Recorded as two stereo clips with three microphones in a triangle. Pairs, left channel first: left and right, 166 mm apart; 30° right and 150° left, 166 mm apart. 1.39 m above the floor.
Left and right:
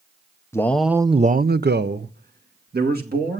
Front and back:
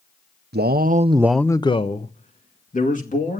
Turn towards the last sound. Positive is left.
turn(degrees=-65)